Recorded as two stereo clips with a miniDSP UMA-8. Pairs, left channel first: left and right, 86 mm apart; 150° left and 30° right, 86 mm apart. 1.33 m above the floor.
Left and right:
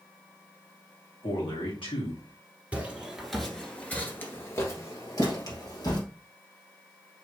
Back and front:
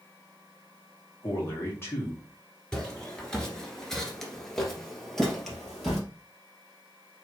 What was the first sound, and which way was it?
A man speaking, 90° left.